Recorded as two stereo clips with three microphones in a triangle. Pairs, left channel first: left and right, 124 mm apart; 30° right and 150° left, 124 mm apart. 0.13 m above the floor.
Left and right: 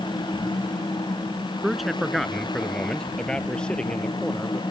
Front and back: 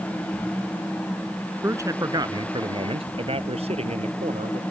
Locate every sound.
1.6 s a man speaking: 175° right; by 4.6 s 170° left